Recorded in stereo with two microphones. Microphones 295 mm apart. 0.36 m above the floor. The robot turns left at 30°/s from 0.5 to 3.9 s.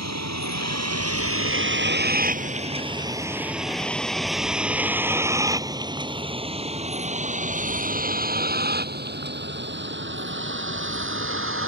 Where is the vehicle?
65° right (ahead or behind); by 11.7 s 45° right (ahead or behind).